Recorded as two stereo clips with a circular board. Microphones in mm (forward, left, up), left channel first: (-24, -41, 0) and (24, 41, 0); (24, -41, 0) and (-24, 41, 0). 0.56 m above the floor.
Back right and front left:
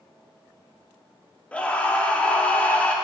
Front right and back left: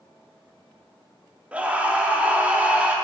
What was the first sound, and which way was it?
A scream, straight behind.